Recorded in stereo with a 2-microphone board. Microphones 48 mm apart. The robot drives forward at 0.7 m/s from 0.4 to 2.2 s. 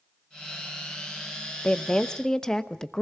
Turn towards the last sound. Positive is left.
turn(degrees=15)  # may be behind; listen again after turning